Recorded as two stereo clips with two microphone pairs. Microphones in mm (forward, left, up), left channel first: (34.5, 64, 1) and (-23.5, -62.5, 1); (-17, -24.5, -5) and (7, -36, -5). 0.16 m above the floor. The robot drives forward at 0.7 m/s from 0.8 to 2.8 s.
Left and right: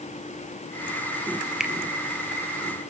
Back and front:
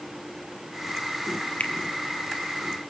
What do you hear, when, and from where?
1.6 s a finger snap: 160° left, 2.5 m